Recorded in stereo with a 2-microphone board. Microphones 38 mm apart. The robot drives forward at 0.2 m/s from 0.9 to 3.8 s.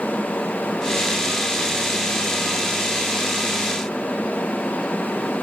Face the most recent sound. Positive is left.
No sound to turn to.